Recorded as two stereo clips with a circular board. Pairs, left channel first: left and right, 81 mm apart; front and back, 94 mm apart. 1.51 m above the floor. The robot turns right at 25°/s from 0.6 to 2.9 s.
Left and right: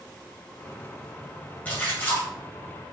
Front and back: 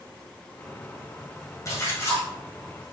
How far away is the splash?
About 1.6 m.